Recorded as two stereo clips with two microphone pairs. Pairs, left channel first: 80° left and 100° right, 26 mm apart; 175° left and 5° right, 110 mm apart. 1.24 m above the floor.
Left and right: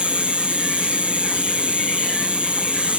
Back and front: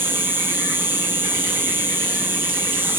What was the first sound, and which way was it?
An insect, 70° right.